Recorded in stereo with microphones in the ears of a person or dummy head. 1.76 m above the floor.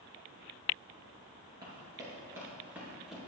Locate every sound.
1.6 s running footsteps: 30° right (ahead or behind), 2.0 m; by 3.2 s 5° right (ahead or behind), 1.8 m